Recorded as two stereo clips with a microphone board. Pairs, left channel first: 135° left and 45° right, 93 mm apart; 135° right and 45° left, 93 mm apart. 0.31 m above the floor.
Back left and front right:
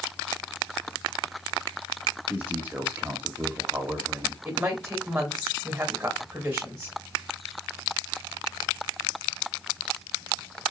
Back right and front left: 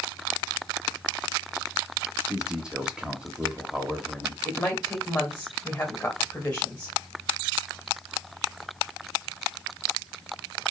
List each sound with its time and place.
2.3 s a man speaking: 20° right, 0.9 m
4.5 s a woman speaking: 95° right, 1.1 m